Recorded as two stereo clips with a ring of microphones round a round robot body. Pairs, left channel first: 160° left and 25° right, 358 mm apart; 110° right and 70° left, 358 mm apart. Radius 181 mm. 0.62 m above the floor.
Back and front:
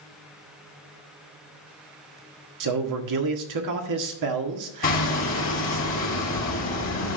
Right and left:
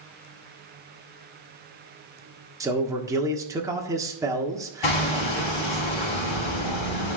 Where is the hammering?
135° right, 4 m.